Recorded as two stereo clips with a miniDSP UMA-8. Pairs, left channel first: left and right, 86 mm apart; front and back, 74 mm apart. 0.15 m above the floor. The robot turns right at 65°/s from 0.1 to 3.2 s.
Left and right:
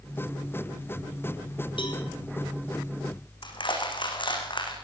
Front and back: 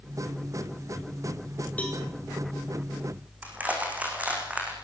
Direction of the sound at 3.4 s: 110° left.